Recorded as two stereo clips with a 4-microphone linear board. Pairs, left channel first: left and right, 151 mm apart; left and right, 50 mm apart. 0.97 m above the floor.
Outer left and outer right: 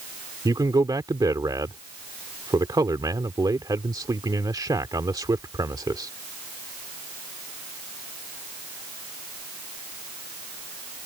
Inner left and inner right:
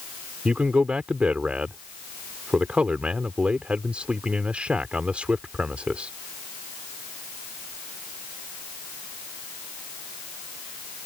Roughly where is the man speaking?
Right.